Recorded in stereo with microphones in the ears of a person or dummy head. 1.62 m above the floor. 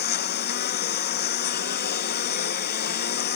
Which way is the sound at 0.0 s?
50° left (ahead or behind).